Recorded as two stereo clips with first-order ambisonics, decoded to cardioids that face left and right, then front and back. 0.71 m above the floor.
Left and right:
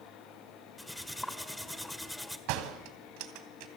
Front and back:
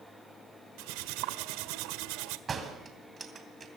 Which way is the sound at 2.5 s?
110° right.